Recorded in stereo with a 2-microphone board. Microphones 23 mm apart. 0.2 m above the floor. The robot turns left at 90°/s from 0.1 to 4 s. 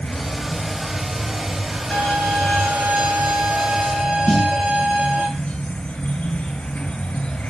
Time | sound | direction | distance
0.0 | an insect | 70° left | 1.7 m
1.9 | a violin | 45° left | 5.5 m
4.3 | a snare drum | 40° left (ahead or behind) | 2 m